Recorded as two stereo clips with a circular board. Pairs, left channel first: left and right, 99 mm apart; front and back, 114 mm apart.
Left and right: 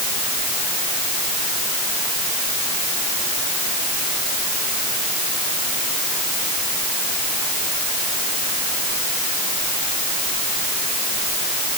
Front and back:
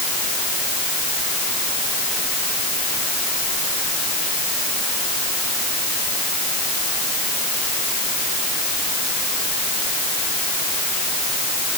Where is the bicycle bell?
I don't hear a bicycle bell.